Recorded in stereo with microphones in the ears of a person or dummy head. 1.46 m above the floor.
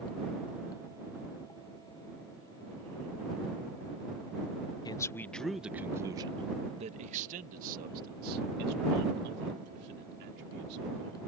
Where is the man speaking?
20° left (ahead or behind); by 11.2 s 65° right (ahead or behind).